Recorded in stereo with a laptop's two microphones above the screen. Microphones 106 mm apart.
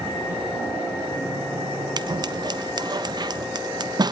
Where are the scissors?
40° right (ahead or behind), 1.1 m.